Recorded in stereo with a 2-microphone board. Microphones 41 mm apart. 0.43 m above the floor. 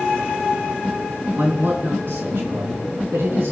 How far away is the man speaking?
About 4.5 m.